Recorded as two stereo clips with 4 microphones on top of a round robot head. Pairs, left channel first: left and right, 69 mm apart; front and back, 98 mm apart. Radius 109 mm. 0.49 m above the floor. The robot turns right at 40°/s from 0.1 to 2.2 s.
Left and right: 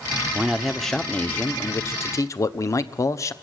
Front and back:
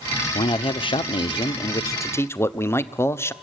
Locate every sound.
0.3 s a man speaking: 15° right, 1.1 m; by 3.3 s 60° left, 1.1 m